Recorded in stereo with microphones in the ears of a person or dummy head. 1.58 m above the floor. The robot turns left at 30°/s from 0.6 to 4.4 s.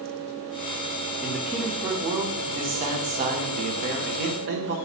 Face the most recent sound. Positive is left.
turn(degrees=-95)